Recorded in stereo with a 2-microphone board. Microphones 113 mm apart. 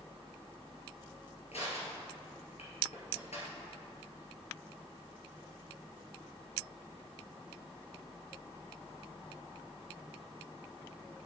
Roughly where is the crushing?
Left.